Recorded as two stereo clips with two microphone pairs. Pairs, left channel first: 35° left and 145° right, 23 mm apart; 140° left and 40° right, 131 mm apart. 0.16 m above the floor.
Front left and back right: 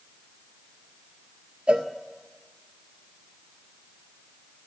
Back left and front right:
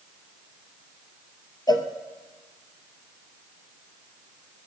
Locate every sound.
1.7 s a cowbell: 165° right, 0.7 m